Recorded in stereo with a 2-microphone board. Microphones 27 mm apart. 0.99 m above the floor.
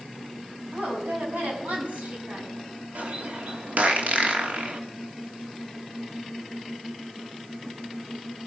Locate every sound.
0.7 s a woman speaking: 55° right (ahead or behind), 7 m
3.0 s a bird: 60° right (ahead or behind), 2.5 m